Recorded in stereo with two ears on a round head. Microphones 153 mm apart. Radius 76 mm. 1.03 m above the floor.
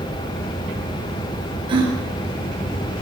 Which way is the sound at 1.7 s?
30° right (ahead or behind).